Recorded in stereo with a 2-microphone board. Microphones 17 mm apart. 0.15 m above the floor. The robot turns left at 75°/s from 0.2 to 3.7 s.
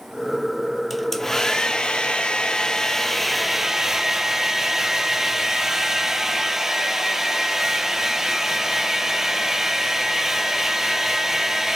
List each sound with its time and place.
0.9 s a hair dryer: 175° left, 0.6 m; by 11.8 s 35° right, 0.6 m